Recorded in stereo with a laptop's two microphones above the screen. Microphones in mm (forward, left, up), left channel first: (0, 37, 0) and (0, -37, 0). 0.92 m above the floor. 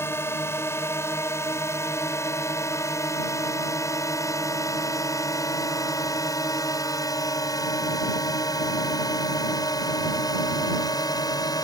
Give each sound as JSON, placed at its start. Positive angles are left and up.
{"t": 0.0, "sound": "a drone", "side_deg": 40}